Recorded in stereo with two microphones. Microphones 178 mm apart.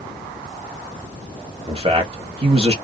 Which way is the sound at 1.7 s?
35° right (ahead or behind).